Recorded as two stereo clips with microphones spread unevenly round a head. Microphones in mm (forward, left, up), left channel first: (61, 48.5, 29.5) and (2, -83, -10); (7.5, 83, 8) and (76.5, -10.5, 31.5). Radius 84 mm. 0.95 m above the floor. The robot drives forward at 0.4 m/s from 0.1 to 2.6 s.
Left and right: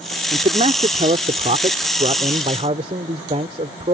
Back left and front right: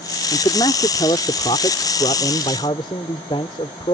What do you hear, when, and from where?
0.3 s a man speaking: 170° right